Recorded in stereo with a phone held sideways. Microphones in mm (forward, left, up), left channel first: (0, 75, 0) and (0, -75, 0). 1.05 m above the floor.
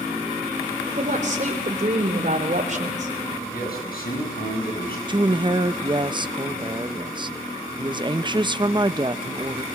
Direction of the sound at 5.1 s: 30° right (ahead or behind).